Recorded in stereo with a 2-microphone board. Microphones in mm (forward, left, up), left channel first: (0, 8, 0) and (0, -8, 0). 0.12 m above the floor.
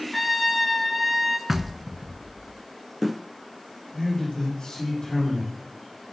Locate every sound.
0.1 s a trumpet: 5° left (ahead or behind), 1.7 m
1.5 s knocking: 20° right (ahead or behind), 0.8 m
3.9 s a man speaking: 65° left (ahead or behind), 6.5 m